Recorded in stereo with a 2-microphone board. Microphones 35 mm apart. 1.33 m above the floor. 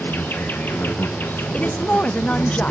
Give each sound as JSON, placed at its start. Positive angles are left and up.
{"t": 0.0, "sound": "an insect", "side_deg": 75, "distance_m": 1.0}
{"t": 1.5, "sound": "a woman speaking", "side_deg": 45, "distance_m": 0.6}